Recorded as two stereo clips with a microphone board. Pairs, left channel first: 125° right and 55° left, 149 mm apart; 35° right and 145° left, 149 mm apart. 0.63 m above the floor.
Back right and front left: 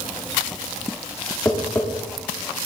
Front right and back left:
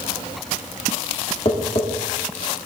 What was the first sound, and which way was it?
Tapping, 55° right.